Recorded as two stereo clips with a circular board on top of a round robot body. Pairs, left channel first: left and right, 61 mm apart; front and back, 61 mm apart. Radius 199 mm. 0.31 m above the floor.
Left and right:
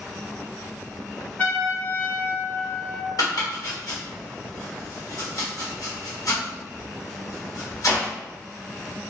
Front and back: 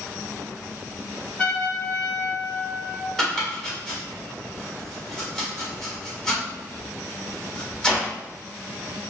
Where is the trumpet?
55° left, 0.9 m.